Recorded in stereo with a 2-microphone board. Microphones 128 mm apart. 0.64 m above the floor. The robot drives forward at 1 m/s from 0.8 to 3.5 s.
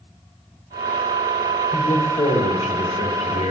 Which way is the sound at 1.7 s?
55° left (ahead or behind).